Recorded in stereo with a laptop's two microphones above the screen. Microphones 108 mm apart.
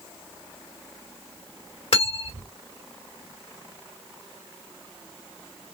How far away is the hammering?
I don't hear hammering.